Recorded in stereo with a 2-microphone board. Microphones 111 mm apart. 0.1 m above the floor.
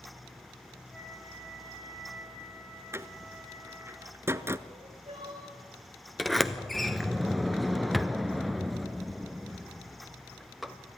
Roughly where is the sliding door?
Centre.